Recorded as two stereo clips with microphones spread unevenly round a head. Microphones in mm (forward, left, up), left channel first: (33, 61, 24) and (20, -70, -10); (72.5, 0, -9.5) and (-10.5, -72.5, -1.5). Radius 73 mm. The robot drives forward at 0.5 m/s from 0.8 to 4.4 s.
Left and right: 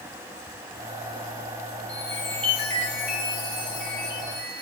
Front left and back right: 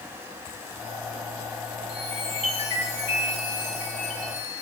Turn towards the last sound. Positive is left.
turn(degrees=170)